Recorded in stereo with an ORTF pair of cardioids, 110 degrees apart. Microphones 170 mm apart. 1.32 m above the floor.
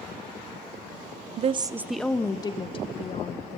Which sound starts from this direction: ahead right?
A woman speaking, at 1.4 s.